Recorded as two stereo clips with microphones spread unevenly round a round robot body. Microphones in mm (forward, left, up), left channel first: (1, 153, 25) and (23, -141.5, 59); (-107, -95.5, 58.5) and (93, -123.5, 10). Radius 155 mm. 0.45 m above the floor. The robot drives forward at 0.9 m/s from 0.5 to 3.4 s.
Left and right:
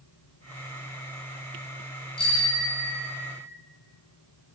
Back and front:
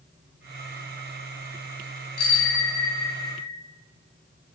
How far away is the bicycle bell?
About 7 m.